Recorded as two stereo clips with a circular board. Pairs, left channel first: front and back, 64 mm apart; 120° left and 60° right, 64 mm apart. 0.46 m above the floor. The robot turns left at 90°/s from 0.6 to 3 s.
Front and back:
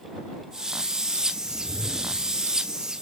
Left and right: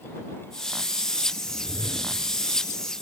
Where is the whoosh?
165° left; by 2.5 s 75° left.